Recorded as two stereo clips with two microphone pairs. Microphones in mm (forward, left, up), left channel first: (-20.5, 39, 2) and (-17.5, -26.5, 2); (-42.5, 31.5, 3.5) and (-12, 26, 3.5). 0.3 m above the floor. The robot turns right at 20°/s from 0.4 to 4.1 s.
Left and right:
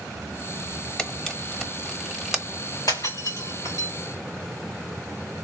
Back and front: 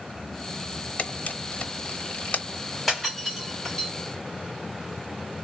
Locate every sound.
1.0 s a camera shutter: 165° left, 0.9 m; by 2.4 s 165° right, 0.9 m
2.9 s breaking glass: 80° left, 3 m; by 3.9 s 100° left, 3 m